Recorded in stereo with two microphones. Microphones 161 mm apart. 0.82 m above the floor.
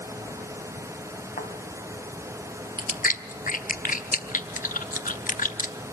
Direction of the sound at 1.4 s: 65° left (ahead or behind).